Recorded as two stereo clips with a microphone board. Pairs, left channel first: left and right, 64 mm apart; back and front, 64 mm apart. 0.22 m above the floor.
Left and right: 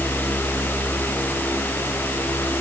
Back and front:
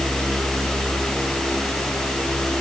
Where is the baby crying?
No baby crying in this recording.